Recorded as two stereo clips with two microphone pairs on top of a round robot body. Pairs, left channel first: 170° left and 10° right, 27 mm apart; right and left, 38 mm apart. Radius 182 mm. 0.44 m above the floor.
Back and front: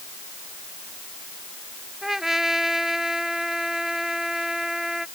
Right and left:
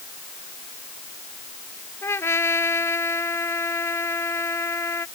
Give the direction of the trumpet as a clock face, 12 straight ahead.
3 o'clock.